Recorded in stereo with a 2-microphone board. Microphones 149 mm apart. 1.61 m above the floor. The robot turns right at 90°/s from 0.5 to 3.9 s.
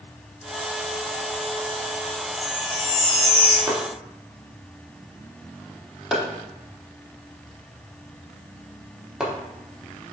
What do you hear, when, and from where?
2.4 s a chime: 135° right, 1.3 m; by 3.6 s 30° right, 1.3 m
3.7 s chopping: 20° right (ahead or behind), 0.9 m; by 9.3 s 5° right (ahead or behind), 0.9 m